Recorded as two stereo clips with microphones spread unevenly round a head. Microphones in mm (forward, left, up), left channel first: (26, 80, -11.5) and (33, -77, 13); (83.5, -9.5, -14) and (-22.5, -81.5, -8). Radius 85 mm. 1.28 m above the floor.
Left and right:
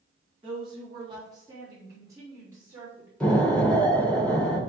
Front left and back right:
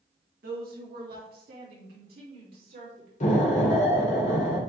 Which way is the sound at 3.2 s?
10° left.